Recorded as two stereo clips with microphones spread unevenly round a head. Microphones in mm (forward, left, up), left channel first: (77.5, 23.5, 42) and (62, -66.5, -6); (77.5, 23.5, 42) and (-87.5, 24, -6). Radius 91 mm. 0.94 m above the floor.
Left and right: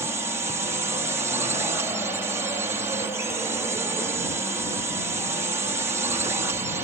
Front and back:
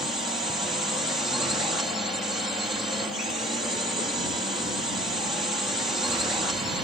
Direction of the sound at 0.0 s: 105° right.